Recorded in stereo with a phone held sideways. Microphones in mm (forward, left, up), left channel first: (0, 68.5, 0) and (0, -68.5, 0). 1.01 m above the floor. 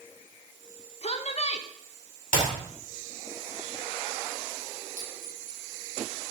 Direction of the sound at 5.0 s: 80° left.